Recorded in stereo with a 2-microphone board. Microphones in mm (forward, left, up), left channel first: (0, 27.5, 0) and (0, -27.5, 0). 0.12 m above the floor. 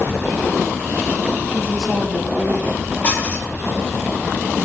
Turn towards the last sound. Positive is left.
turn(degrees=25)  # may be behind; listen again after turning